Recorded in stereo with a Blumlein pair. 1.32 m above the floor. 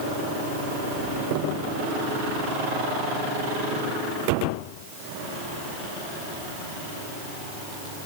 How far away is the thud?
No thud in this recording.